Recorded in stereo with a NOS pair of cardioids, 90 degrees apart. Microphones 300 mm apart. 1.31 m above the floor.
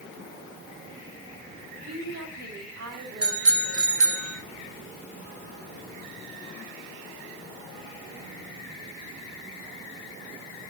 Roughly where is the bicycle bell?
Ahead right.